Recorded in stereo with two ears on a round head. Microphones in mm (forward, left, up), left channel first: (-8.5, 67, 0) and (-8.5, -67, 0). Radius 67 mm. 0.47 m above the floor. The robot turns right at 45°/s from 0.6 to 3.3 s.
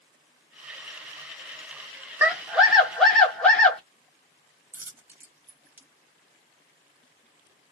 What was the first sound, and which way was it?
A scream, 10° right (ahead or behind).